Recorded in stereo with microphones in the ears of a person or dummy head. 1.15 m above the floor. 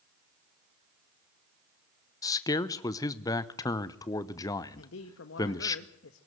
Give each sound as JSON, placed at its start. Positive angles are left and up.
{"t": 2.2, "sound": "a man speaking", "side_deg": 15, "distance_m": 0.8}
{"t": 4.8, "sound": "a man speaking", "side_deg": 70, "distance_m": 1.3}